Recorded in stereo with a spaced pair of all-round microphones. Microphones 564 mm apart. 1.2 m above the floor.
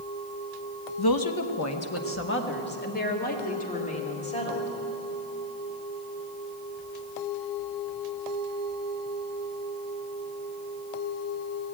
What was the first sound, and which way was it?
A woman speaking, 40° left (ahead or behind).